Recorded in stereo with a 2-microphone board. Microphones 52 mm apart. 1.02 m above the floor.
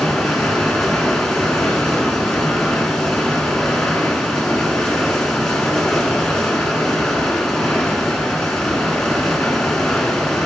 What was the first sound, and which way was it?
Running water, 10° left (ahead or behind).